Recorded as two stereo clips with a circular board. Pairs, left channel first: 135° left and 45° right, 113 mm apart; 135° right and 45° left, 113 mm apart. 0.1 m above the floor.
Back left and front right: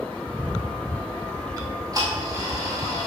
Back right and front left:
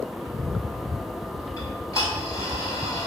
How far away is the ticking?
About 1.4 m.